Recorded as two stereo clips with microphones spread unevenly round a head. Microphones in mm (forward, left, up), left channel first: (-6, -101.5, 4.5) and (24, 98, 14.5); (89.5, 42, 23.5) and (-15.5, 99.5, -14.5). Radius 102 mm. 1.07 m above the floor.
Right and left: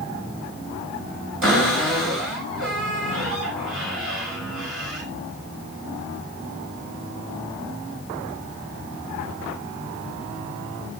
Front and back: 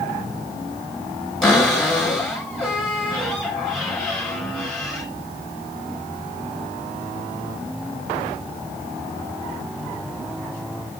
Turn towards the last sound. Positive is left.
turn(degrees=60)